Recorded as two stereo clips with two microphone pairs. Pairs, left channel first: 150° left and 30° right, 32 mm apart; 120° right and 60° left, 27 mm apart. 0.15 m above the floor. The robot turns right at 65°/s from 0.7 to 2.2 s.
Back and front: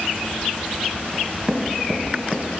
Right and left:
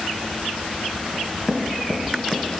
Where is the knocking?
80° right, 1.0 m; by 2.4 s 10° right, 1.0 m.